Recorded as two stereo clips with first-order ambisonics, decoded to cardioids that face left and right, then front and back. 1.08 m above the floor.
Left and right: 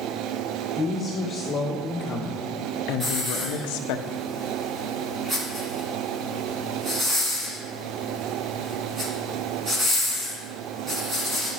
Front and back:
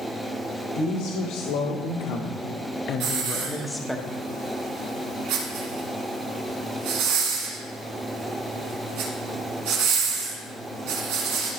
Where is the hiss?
165° right, 3 m.